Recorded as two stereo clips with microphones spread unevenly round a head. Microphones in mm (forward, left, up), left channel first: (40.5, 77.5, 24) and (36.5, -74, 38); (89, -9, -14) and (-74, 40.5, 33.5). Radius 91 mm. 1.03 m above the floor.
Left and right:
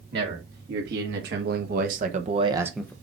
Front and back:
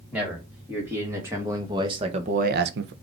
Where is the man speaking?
110° right, 2.5 m; by 2.9 s 155° left, 0.5 m.